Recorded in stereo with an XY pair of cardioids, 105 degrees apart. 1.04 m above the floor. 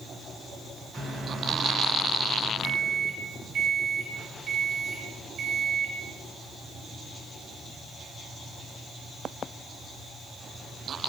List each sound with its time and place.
0.9 s a microwave: 55° right, 3 m